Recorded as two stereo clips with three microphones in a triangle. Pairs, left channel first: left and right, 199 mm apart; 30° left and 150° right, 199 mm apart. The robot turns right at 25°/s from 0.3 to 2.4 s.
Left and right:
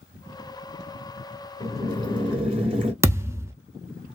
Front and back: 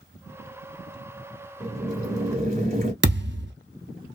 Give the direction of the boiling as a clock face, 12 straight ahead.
5 o'clock.